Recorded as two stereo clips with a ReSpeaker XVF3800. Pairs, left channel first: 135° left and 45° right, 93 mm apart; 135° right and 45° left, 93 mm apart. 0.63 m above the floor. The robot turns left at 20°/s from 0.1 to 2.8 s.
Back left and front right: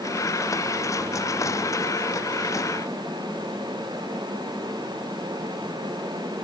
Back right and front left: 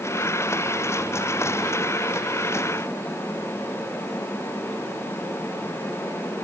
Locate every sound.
Only background noise.